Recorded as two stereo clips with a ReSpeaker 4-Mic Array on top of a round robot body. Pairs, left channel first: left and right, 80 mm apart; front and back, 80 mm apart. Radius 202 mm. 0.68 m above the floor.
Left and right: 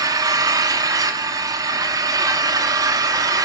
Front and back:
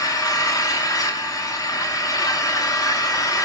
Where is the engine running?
45° right, 0.9 m.